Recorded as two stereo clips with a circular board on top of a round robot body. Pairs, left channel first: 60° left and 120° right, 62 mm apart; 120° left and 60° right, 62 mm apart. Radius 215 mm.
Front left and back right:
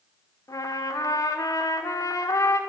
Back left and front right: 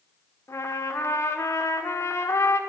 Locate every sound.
0.5 s a trumpet: 75° left, 1.7 m